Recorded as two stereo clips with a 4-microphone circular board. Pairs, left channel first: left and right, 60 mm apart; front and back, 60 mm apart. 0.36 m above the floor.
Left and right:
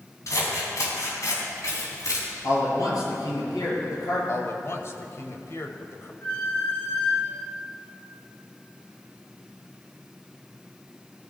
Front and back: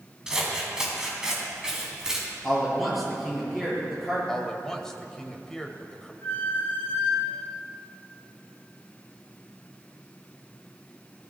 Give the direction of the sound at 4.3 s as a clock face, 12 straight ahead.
9 o'clock.